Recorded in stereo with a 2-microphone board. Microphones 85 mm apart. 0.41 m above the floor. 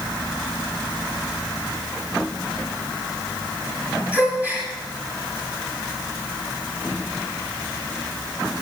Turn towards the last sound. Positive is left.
turn(degrees=-20)  # may be behind; listen again after turning